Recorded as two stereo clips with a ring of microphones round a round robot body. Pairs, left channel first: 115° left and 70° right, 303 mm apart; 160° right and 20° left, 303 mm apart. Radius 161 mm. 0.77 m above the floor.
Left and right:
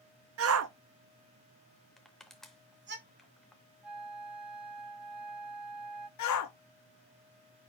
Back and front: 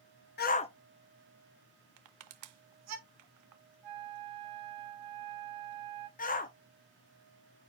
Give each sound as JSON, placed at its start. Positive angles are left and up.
{"t": 0.4, "sound": "a shout", "azimuth_deg": -105, "distance_m": 0.9}
{"t": 2.0, "sound": "crushing", "azimuth_deg": 25, "distance_m": 0.5}
{"t": 3.8, "sound": "a flute", "azimuth_deg": 20, "distance_m": 5.0}
{"t": 6.2, "sound": "a shout", "azimuth_deg": 140, "distance_m": 1.3}